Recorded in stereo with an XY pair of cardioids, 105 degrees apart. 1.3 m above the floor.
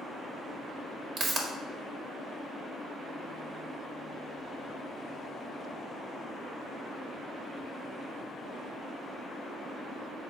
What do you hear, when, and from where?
1.2 s a pop: 55° right, 1.5 m